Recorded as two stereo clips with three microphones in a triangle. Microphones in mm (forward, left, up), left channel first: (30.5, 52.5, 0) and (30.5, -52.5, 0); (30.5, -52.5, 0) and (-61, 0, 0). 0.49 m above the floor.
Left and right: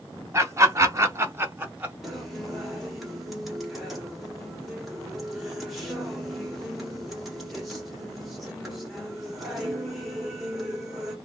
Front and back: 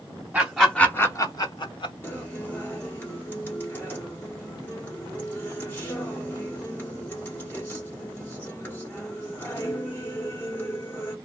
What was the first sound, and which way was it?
Laughter, 135° right.